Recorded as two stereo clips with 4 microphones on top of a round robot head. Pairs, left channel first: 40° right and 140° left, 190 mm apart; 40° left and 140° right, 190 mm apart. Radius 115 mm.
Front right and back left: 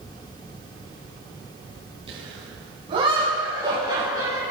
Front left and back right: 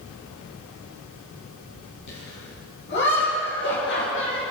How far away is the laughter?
About 8.5 m.